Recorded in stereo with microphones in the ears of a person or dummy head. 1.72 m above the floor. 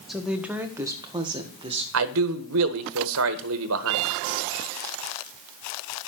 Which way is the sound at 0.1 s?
5° right (ahead or behind).